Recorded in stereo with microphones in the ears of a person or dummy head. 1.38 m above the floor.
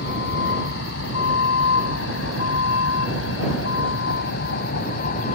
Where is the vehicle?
65° left (ahead or behind); by 5.3 s 50° left (ahead or behind).